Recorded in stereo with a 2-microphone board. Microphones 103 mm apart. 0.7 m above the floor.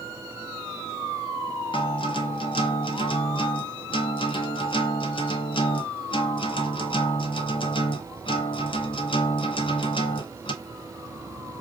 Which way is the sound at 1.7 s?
55° left (ahead or behind).